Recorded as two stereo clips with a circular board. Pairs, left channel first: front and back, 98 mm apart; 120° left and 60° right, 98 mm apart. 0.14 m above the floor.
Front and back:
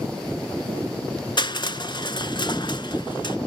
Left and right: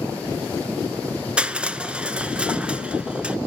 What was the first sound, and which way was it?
Crushing, 15° left.